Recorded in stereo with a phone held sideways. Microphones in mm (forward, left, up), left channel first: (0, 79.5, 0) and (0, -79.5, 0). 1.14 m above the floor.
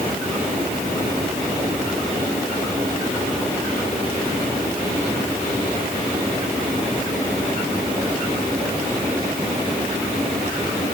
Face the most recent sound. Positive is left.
No sound to turn to.